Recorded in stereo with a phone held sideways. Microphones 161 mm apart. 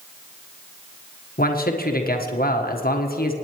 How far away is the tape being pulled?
I don't hear tape being pulled.